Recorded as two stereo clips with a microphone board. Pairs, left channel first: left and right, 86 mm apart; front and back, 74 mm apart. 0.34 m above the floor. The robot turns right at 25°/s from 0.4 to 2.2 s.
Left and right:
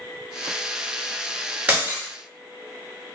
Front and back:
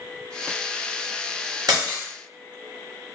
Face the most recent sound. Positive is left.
turn(degrees=-145)